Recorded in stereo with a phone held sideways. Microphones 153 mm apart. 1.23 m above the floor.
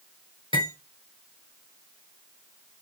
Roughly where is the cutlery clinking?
Left.